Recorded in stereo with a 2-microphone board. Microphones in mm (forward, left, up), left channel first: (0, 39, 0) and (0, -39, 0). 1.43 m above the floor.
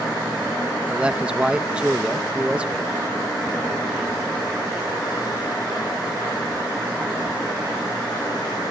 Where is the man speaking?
15° right (ahead or behind).